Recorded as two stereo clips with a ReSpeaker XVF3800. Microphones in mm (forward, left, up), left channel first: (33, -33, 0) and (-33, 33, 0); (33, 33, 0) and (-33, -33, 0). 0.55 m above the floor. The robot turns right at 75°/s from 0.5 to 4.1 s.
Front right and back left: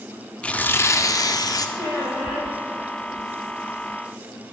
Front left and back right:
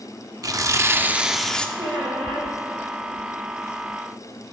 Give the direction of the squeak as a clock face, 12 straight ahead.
6 o'clock.